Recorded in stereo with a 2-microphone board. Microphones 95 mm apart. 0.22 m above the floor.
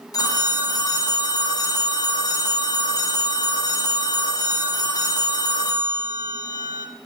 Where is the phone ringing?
40° left (ahead or behind), 0.8 m.